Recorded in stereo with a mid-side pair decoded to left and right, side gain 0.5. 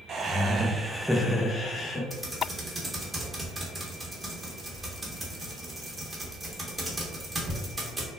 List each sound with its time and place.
0.1 s laughter: 50° right, 0.8 m; by 2.0 s 45° left, 0.9 m
2.1 s typing on a keyboard: 20° right, 1.0 m